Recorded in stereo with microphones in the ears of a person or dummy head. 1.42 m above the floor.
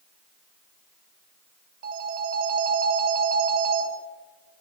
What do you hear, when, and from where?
1.8 s a phone ringing: 50° right (ahead or behind), 2.5 m